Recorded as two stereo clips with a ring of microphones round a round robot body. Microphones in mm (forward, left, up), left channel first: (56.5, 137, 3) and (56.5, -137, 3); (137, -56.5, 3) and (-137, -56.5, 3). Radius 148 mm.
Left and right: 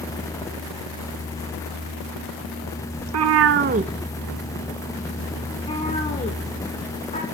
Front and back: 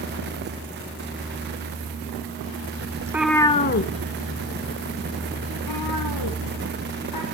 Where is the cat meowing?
105° right, 0.7 m; by 7.2 s 25° left, 2.5 m.